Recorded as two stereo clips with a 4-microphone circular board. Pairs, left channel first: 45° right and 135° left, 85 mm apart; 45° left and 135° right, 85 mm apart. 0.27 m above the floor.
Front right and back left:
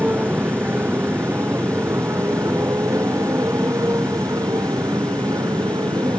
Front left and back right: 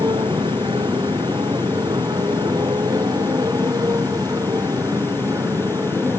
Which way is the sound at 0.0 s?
160° right.